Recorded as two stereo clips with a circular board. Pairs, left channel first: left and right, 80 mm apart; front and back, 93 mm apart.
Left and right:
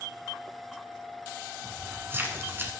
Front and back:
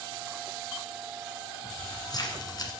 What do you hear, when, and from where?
1.6 s keys jangling: 35° right, 1.5 m